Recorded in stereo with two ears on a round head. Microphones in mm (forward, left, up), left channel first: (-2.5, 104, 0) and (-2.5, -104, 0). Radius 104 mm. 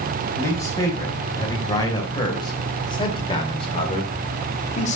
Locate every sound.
0.3 s a man speaking: 15° left (ahead or behind), 4 m; by 5.0 s 35° left (ahead or behind), 1.9 m